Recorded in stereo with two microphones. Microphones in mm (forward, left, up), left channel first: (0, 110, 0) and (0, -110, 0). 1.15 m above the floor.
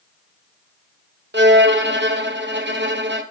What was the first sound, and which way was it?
A violin, 50° right (ahead or behind).